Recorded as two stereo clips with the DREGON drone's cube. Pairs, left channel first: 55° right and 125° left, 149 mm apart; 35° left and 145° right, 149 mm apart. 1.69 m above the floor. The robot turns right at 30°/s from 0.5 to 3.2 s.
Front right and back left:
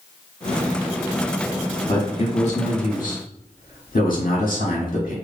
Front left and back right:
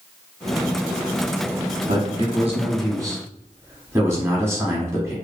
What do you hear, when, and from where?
1.9 s a man speaking: 115° right, 1.2 m; by 5.1 s 75° right, 1.2 m